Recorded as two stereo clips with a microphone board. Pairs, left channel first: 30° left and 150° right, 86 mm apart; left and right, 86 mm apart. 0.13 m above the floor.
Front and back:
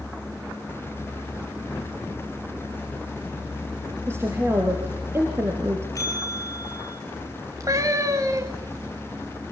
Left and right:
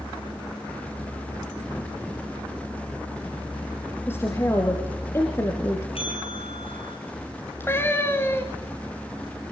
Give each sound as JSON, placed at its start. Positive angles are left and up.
{"t": 4.1, "sound": "a woman speaking", "azimuth_deg": 150, "distance_m": 3.5}
{"t": 6.0, "sound": "a bell", "azimuth_deg": 85, "distance_m": 8.5}
{"t": 7.6, "sound": "a cat meowing", "azimuth_deg": 155, "distance_m": 3.5}